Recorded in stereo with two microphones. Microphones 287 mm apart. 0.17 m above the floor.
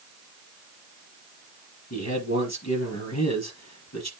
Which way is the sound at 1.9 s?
60° left (ahead or behind).